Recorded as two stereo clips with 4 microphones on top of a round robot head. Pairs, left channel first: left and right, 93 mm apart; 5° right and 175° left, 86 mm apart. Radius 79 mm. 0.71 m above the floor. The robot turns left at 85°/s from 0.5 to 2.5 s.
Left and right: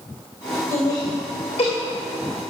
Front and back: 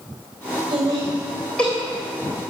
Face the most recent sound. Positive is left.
turn(degrees=0)